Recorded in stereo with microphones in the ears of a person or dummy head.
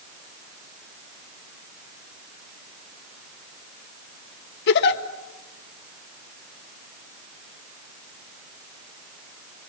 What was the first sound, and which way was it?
A giggle, 60° left (ahead or behind).